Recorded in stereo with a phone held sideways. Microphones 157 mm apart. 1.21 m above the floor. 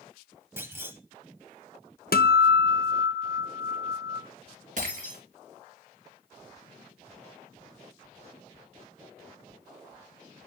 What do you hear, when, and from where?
0.6 s a clunk: 15° right (ahead or behind), 1.1 m
2.1 s a guitar: 75° left (ahead or behind), 0.6 m
4.8 s breaking glass: 60° right (ahead or behind), 3 m